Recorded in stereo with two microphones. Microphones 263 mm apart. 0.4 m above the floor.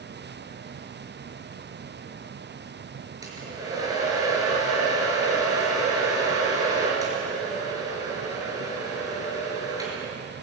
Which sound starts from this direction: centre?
A hair dryer, at 3.2 s.